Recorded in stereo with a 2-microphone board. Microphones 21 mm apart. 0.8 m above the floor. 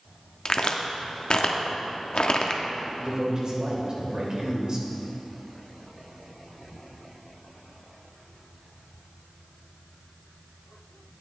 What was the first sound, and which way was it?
A crack, 50° left (ahead or behind).